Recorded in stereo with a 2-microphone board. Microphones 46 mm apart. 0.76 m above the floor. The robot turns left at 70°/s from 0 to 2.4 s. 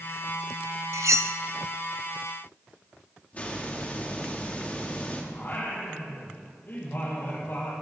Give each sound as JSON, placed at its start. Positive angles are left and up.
{"t": 0.9, "sound": "cutlery clinking", "side_deg": -90, "distance_m": 0.5}
{"t": 3.3, "sound": "a hiss", "side_deg": 30, "distance_m": 1.7}
{"t": 5.3, "sound": "singing", "side_deg": 50, "distance_m": 4.5}